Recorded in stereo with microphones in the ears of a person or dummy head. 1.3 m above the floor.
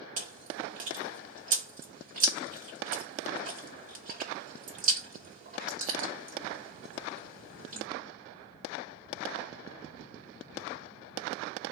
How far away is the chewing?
About 0.8 m.